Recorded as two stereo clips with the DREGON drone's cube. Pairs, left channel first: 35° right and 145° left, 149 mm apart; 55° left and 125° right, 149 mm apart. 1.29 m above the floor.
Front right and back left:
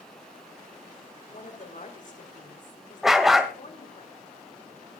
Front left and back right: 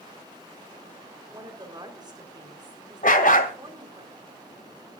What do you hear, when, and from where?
1.3 s a woman speaking: 65° right, 4 m
3.0 s a dog barking: 60° left, 2.0 m